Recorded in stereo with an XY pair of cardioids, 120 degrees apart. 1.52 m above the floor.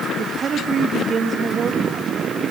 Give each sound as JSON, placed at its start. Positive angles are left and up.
{"t": 0.2, "sound": "a woman speaking", "azimuth_deg": -40, "distance_m": 3.0}